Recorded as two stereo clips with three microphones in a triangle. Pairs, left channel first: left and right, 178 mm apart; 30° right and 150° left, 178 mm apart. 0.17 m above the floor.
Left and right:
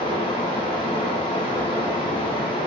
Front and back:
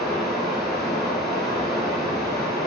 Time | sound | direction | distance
0.0 | running water | 60° left | 1.0 m